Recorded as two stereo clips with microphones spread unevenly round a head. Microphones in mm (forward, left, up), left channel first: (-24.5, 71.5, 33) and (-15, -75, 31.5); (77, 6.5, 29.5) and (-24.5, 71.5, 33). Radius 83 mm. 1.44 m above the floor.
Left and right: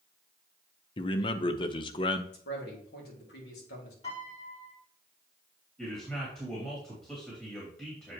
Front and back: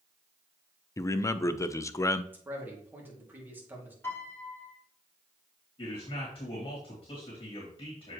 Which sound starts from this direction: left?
A man speaking, at 2.3 s.